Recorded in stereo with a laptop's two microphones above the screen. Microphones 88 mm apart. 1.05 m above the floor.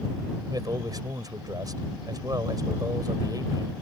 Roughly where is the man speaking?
Right.